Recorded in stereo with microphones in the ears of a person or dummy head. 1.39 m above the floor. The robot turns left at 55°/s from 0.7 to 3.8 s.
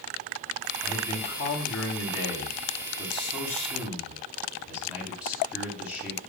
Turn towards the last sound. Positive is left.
turn(degrees=-5)